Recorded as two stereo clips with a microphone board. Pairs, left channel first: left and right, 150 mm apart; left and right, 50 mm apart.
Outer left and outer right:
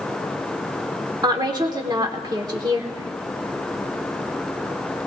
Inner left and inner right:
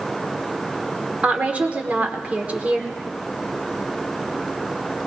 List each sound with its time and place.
1.2 s a woman speaking: 25° right (ahead or behind), 1.3 m